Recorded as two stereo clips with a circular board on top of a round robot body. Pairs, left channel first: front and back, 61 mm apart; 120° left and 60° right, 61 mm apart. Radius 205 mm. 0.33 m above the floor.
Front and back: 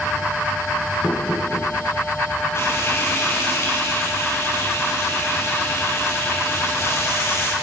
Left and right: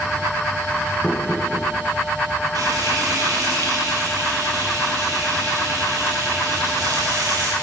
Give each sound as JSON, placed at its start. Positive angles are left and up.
{"t": 1.0, "sound": "knocking", "azimuth_deg": 50, "distance_m": 6.5}
{"t": 2.5, "sound": "frying", "azimuth_deg": -50, "distance_m": 8.0}